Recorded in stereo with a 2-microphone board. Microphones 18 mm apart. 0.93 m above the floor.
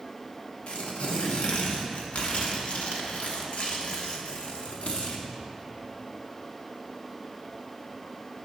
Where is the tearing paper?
85° left, 1.2 m.